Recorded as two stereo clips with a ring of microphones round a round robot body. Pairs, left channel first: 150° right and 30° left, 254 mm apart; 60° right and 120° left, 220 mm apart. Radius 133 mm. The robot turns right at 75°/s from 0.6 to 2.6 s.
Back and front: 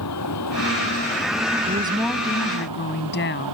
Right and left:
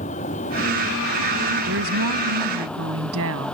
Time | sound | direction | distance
0.0 | a vehicle | 125° right | ?
1.7 | a woman speaking | 90° left | ?